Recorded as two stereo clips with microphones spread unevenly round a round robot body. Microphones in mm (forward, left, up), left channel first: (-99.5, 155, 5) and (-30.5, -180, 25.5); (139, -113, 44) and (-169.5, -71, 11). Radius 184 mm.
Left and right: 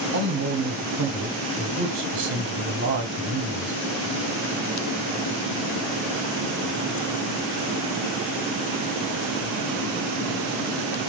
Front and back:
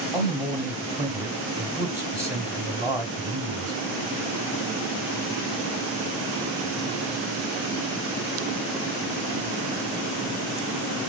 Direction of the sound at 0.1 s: 120° right.